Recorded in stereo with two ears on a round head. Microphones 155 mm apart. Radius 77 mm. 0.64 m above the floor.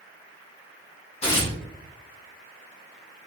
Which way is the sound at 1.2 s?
40° left (ahead or behind).